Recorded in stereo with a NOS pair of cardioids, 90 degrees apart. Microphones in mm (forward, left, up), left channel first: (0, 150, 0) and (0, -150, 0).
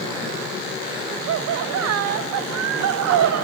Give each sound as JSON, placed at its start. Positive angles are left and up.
{"t": 1.3, "sound": "laughter", "azimuth_deg": -65, "distance_m": 0.6}